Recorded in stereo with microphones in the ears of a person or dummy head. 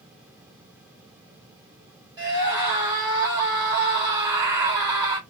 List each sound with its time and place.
2.2 s a scream: 20° right (ahead or behind), 2.5 m